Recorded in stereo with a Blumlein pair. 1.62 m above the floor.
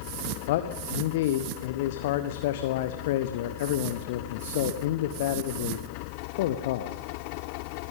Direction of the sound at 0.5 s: 50° left.